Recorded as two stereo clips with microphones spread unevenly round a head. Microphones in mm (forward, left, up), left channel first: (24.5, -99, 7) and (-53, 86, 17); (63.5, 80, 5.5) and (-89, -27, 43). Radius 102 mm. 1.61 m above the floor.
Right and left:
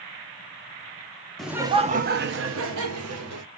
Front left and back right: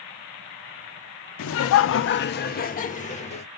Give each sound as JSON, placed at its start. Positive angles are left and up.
{"t": 1.4, "sound": "laughter", "azimuth_deg": 20, "distance_m": 0.5}